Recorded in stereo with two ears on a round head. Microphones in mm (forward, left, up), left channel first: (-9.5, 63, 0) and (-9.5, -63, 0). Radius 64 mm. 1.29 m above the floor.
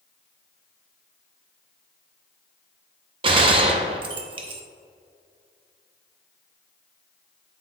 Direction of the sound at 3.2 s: 35° right (ahead or behind).